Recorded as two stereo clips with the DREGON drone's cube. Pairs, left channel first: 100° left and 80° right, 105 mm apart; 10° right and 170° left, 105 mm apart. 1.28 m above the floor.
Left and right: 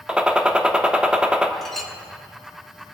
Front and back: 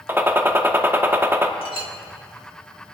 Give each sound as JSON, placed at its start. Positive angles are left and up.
{"t": 0.1, "sound": "a gunshot", "azimuth_deg": -150, "distance_m": 0.8}
{"t": 1.6, "sound": "a clink", "azimuth_deg": 15, "distance_m": 1.5}